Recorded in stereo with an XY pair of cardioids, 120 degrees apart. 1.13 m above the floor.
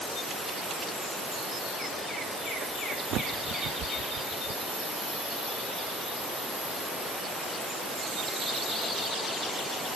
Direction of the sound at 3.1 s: 65° right.